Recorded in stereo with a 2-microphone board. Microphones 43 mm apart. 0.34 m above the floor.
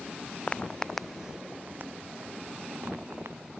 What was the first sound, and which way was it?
Footsteps, 30° left (ahead or behind).